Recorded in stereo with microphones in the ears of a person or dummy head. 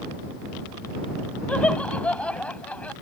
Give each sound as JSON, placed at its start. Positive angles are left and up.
{"t": 1.5, "sound": "laughter", "side_deg": 0}